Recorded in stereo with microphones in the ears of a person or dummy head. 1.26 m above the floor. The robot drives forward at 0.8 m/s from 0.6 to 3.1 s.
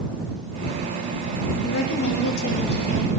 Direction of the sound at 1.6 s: 85° left.